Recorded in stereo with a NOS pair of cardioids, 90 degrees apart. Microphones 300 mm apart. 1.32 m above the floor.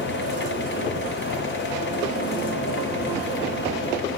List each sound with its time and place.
0.0 s a fan: 40° left, 1.0 m